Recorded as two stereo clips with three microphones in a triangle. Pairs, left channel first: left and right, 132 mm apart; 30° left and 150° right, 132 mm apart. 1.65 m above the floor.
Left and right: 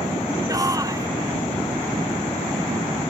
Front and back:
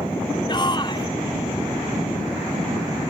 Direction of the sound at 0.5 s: 25° right.